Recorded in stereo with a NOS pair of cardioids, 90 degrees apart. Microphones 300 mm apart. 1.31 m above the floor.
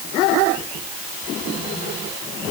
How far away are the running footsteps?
I don't hear running footsteps.